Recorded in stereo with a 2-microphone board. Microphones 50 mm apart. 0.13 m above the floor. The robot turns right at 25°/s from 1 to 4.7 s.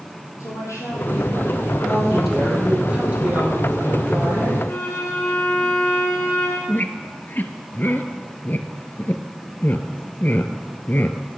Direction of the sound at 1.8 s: 175° left.